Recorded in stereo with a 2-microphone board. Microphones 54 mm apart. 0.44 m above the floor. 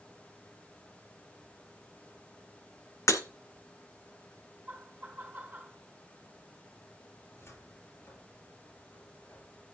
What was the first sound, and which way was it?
Breaking glass, 75° left (ahead or behind).